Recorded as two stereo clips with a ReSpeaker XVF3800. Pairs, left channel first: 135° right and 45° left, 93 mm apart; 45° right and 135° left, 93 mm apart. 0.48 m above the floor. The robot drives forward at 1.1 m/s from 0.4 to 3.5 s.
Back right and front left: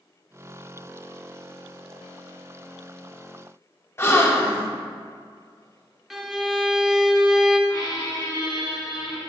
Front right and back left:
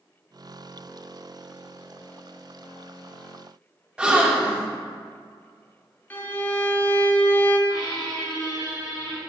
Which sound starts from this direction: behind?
A gasp, at 4.0 s.